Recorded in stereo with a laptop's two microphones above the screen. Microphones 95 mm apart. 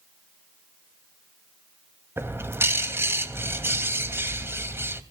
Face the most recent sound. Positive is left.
turn(degrees=-25)  # may be behind; listen again after turning